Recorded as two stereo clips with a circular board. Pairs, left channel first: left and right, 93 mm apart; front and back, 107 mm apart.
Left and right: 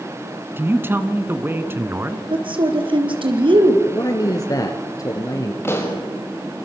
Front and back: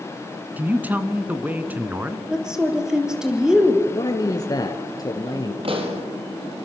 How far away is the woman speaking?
About 4 m.